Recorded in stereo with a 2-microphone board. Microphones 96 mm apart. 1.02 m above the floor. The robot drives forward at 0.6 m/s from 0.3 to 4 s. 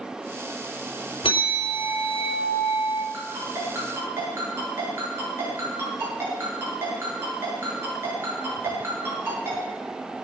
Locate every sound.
1.2 s a bell: 85° left, 3.5 m; by 3.0 s 70° left (ahead or behind), 3.5 m
3.1 s a ringtone: 30° right (ahead or behind), 8 m